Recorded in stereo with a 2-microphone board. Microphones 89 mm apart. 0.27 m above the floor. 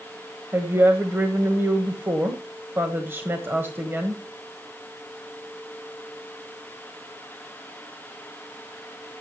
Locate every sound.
0.5 s a woman speaking: 25° right (ahead or behind), 1.4 m